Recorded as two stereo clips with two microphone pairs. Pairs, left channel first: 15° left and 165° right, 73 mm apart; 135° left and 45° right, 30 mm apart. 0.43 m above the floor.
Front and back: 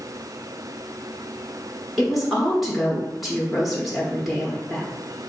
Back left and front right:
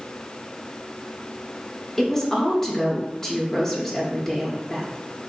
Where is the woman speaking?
100° left, 1.0 m.